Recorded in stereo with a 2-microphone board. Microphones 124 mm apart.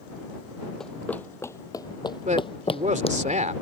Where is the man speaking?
80° right.